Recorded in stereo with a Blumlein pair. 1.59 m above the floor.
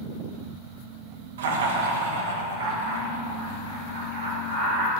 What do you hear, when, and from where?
1.4 s laughter: 60° right, 0.7 m; by 4.9 s 65° right, 3 m